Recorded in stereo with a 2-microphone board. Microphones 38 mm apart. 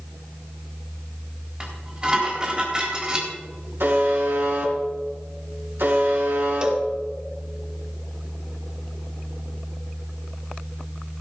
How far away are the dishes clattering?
About 4 m.